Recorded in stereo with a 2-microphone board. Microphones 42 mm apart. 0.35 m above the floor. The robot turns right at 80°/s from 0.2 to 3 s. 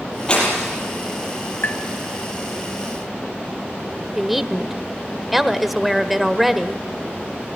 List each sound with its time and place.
0.3 s breaking glass: 155° left, 6.5 m; by 0.7 s 170° right, 6.5 m
1.6 s tapping: 60° left (ahead or behind), 2 m; by 1.8 s 50° left (ahead or behind), 2 m
4.2 s a woman speaking: centre (ahead or behind), 0.9 m